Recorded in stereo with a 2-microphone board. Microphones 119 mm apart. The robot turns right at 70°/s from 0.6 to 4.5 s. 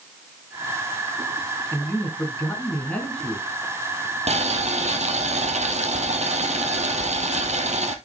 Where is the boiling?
70° right (ahead or behind), 1.4 m; by 8.0 s 75° right (ahead or behind), 1.4 m.